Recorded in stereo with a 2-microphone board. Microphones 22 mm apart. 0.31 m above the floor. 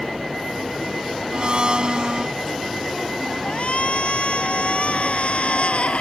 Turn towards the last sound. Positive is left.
turn(degrees=75)  # may be behind; listen again after turning